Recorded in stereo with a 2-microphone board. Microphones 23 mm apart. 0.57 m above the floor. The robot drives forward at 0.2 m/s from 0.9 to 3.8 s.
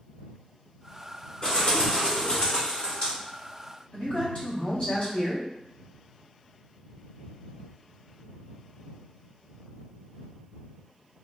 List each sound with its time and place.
1.4 s a bird: 50° left (ahead or behind), 2.0 m
3.9 s a man speaking: 50° left (ahead or behind), 1.8 m